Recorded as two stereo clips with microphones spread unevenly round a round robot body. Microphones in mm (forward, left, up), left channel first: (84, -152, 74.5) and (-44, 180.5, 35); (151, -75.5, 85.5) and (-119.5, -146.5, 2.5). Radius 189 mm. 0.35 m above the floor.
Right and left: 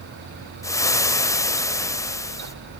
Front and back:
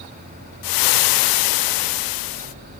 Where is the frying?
15° left, 0.5 m.